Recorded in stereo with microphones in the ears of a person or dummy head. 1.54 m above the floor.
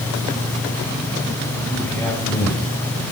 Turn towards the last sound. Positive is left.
turn(degrees=5)  # may be behind; listen again after turning